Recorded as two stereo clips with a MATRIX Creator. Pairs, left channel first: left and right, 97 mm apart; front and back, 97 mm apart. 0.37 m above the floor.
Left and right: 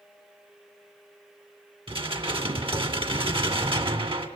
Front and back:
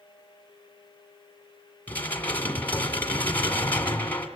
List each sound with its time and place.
1.9 s dishes clattering: 70° right, 2.5 m